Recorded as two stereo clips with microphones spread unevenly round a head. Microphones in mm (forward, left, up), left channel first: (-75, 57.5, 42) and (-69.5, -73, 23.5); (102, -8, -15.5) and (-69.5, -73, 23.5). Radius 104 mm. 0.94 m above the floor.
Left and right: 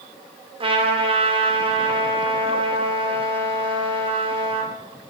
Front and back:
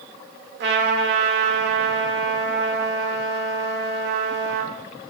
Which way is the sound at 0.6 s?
130° right.